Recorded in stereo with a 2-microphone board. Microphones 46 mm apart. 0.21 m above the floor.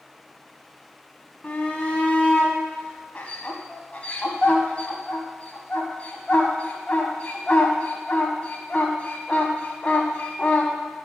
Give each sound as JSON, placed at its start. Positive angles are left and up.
{"t": 1.4, "sound": "a shout", "side_deg": 30, "distance_m": 1.3}